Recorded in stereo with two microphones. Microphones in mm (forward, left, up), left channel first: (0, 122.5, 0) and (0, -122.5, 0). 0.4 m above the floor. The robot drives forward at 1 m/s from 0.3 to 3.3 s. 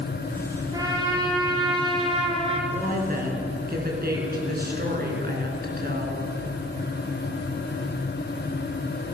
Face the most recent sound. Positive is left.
turn(degrees=-40)  # may be behind; listen again after turning